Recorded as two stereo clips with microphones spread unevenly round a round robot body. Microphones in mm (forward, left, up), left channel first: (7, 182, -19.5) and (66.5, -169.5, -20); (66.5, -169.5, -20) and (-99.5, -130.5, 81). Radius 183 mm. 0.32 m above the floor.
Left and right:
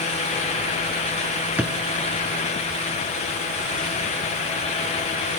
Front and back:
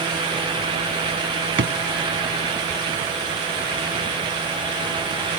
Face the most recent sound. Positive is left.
turn(degrees=-165)